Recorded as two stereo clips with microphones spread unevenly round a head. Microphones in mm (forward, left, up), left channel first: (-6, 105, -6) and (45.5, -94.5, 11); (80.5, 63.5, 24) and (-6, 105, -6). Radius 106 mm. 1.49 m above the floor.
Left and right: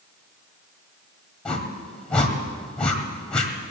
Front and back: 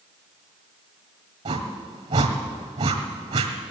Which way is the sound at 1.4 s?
165° right.